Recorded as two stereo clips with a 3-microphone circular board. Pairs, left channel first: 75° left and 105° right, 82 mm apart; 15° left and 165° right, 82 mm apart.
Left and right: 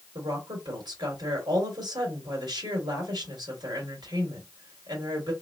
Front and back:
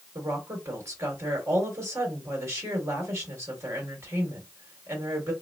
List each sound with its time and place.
0.1 s a woman speaking: 110° right, 2.5 m